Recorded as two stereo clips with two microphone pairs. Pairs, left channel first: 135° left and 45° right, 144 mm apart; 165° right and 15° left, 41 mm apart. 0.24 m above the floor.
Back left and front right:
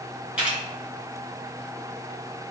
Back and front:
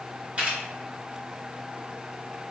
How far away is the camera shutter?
About 1.8 m.